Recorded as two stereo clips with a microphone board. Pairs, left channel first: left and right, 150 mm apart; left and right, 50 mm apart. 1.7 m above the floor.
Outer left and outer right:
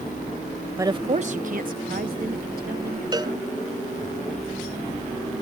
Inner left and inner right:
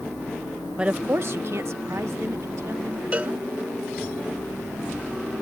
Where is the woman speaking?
15° right (ahead or behind); by 3.7 s 85° right.